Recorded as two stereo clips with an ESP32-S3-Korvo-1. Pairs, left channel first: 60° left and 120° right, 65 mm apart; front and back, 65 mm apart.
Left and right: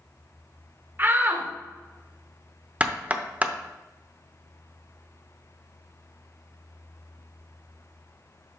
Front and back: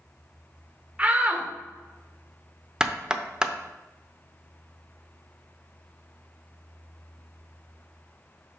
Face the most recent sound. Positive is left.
turn(degrees=-125)